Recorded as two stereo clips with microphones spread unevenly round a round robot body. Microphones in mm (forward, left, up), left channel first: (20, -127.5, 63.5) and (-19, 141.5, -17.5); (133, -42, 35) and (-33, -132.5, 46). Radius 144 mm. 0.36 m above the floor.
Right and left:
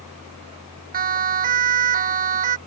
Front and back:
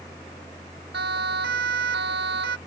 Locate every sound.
0.9 s a siren: 155° left; by 2.6 s 160° left